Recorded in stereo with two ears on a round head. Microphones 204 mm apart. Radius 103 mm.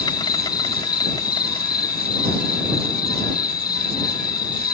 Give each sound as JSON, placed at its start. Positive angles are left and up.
{"t": 0.0, "sound": "an insect", "side_deg": 15}